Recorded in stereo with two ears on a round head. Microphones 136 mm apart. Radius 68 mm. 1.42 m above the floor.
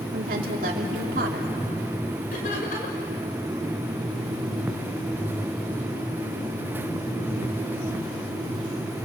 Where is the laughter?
60° left (ahead or behind), 5.5 m.